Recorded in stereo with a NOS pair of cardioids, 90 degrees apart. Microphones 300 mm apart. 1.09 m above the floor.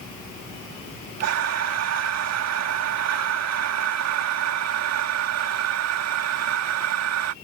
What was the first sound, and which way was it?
Breathing, 60° right.